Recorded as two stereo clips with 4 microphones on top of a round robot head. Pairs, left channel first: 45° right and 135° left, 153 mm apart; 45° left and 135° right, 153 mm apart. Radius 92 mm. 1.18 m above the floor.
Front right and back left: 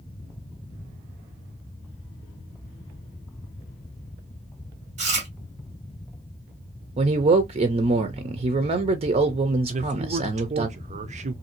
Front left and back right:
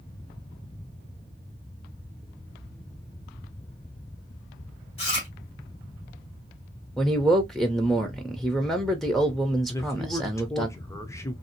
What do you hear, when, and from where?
5.0 s chewing: 95° left, 1.4 m
7.0 s a man speaking: 130° left, 0.7 m
9.7 s a man speaking: 110° left, 0.6 m